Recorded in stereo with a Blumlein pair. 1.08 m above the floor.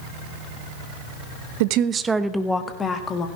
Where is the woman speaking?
50° right, 0.9 m; by 3.3 s 25° left, 2 m.